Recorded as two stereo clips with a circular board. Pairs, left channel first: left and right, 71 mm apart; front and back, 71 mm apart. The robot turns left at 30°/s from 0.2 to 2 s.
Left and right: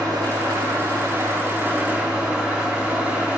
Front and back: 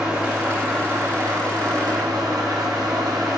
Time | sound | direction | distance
0.0 | an engine running | 105° right | 3 m